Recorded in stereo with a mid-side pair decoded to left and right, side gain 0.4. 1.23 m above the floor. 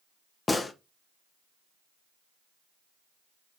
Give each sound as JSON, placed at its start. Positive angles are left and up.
{"t": 0.5, "sound": "a gunshot", "azimuth_deg": 30, "distance_m": 1.6}